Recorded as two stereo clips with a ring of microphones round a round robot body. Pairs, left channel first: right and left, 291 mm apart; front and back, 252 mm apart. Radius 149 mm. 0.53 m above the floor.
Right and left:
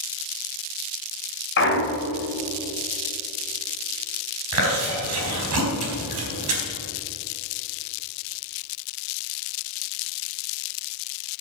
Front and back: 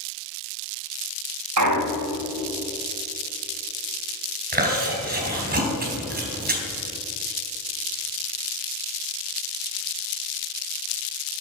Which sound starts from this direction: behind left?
Chewing, at 4.5 s.